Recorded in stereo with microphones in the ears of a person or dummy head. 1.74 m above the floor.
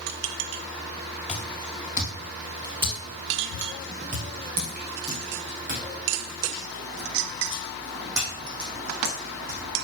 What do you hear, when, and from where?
1.3 s footsteps: 5° right (ahead or behind), 2 m; by 9.6 s 60° right (ahead or behind), 5 m